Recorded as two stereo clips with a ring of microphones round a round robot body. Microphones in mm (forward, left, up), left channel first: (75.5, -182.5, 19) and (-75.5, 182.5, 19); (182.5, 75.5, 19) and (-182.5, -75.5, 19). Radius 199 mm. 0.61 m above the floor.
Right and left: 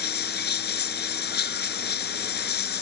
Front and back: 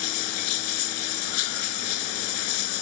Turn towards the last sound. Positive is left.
turn(degrees=0)